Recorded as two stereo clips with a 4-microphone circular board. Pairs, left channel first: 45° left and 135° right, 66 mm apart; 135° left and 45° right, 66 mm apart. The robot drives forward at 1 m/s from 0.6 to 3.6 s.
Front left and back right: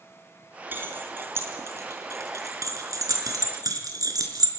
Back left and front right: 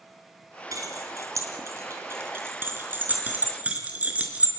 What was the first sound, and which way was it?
Keys jangling, 75° right.